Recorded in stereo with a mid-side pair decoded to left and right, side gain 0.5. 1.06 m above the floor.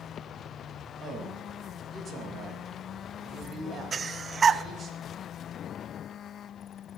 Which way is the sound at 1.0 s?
45° right.